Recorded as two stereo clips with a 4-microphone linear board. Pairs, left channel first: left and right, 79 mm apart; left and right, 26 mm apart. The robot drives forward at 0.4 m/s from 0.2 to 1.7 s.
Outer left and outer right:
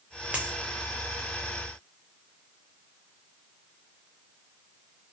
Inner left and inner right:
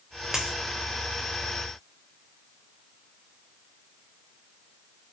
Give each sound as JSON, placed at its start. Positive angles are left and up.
{"t": 0.3, "sound": "a dropped coin", "side_deg": -15, "distance_m": 0.8}